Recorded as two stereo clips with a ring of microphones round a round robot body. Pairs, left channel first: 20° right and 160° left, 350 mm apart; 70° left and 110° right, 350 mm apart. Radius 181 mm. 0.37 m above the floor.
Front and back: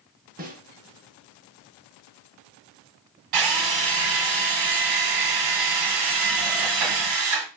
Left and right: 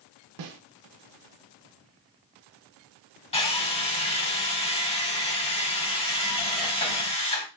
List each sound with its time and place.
0.4 s a snare drum: 135° right, 0.7 m
3.3 s a drill: 140° left, 1.2 m